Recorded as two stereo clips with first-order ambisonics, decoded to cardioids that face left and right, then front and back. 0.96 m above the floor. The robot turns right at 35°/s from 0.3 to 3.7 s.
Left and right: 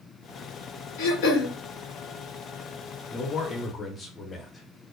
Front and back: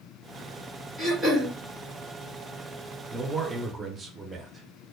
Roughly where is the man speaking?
Behind left.